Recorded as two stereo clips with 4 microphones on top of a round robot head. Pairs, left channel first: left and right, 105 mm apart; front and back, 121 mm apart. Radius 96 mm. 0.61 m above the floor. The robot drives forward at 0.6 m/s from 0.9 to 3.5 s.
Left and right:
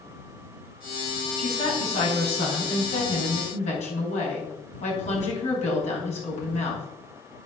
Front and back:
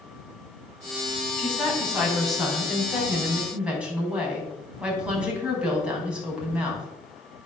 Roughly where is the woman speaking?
Left.